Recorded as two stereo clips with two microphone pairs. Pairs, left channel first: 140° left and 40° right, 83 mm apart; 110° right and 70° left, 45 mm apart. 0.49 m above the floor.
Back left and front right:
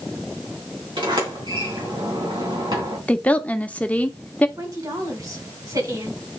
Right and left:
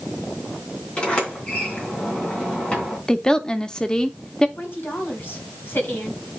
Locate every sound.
1.0 s a sliding door: 45° right, 3.5 m
3.1 s a woman speaking: 165° right, 0.8 m
4.6 s a woman speaking: 75° right, 3 m